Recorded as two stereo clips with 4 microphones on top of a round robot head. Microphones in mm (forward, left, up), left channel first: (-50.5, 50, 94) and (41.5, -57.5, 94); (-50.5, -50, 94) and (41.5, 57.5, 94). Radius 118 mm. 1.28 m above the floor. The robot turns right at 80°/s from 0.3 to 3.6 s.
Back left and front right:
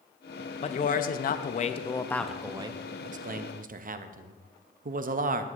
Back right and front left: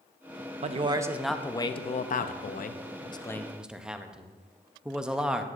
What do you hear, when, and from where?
0.6 s a man speaking: 85° left, 0.6 m; by 5.5 s 35° right, 0.6 m